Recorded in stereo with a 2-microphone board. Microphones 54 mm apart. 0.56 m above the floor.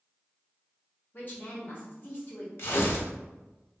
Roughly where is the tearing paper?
Left.